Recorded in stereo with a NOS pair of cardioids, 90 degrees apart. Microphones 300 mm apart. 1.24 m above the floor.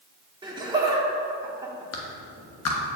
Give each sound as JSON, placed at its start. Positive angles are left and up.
{"t": 0.4, "sound": "laughter", "azimuth_deg": -15, "distance_m": 1.6}
{"t": 1.9, "sound": "a clap", "azimuth_deg": 55, "distance_m": 1.1}